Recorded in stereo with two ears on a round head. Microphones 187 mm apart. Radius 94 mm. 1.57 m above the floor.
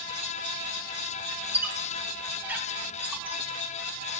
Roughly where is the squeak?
Centre.